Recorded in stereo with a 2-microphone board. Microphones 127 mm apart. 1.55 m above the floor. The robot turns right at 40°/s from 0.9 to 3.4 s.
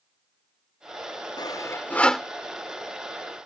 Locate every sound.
1.4 s sawing: 35° left (ahead or behind); by 2.3 s centre (ahead or behind)